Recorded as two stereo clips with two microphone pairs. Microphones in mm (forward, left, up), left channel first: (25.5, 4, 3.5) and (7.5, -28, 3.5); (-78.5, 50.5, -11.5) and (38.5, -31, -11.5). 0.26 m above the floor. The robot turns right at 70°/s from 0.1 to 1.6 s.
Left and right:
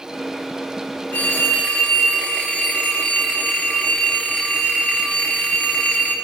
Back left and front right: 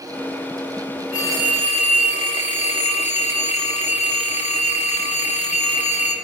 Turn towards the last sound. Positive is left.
turn(degrees=120)